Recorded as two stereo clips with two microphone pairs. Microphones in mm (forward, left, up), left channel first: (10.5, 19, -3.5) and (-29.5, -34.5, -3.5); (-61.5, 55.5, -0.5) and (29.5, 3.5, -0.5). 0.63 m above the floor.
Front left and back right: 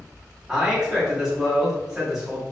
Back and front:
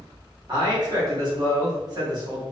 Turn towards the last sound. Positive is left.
turn(degrees=-50)